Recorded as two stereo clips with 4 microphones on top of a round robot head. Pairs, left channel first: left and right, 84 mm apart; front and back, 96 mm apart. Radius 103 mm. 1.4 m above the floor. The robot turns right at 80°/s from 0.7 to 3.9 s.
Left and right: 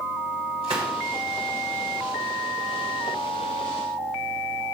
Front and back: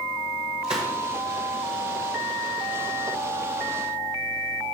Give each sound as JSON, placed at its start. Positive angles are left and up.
{"t": 0.6, "sound": "a gunshot", "azimuth_deg": -135, "distance_m": 1.3}